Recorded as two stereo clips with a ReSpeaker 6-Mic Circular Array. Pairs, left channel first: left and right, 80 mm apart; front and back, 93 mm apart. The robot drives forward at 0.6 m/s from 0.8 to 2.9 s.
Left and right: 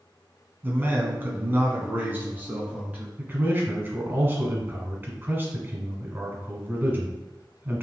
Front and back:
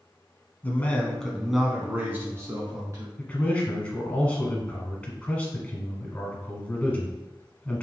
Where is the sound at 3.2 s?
60° right, 1.3 m.